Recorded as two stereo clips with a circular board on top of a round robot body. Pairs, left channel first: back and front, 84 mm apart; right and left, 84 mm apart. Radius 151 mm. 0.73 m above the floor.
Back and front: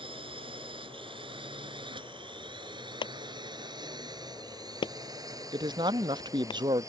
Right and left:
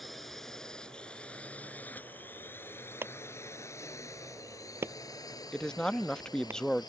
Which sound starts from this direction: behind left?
A clap, at 3.0 s.